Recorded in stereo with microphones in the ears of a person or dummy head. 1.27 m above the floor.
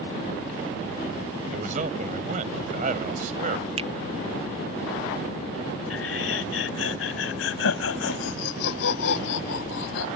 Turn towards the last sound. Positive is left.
turn(degrees=80)